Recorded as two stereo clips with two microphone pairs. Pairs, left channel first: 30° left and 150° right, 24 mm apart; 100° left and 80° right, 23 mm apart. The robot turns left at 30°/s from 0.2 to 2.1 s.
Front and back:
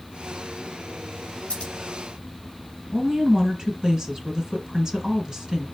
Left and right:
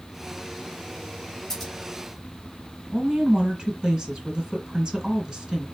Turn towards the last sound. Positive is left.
turn(degrees=-95)